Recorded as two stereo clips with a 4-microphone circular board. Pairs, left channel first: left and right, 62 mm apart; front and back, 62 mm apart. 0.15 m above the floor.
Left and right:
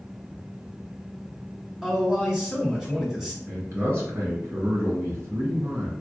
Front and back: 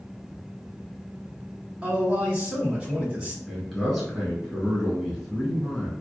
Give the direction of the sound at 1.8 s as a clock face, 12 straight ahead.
5 o'clock.